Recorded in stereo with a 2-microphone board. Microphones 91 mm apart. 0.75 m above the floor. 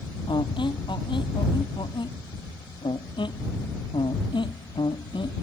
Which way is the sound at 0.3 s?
60° left (ahead or behind).